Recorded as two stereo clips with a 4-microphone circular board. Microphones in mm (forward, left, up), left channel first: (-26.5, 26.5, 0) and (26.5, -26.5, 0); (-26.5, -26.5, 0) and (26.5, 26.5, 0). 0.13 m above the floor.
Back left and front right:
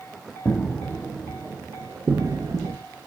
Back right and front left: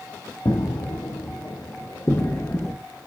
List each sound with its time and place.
0.5 s footsteps: 145° right, 1.0 m; by 2.7 s 65° right, 1.0 m